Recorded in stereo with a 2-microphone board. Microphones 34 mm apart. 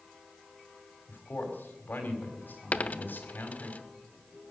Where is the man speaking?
85° left, 4 m.